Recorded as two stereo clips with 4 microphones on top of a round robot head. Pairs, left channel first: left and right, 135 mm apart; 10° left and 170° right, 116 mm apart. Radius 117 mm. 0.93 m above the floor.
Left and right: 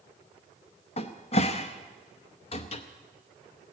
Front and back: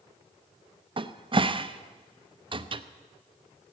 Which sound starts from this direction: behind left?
A cupboard door, at 1.0 s.